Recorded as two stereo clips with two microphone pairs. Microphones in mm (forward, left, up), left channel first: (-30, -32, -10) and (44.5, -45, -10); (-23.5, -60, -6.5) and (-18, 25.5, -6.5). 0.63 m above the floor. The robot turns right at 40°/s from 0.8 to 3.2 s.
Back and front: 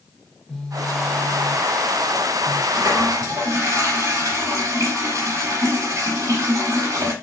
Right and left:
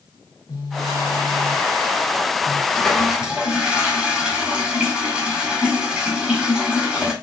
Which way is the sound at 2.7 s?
10° right.